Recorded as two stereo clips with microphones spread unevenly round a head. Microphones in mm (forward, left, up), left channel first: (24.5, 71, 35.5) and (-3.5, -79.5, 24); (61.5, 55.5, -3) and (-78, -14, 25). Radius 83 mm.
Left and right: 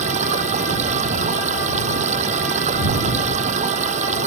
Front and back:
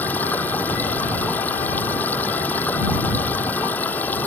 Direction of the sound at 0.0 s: 55° right.